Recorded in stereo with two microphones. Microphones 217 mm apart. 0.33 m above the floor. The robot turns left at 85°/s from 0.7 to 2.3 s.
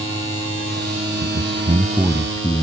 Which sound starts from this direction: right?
A man speaking, at 1.2 s.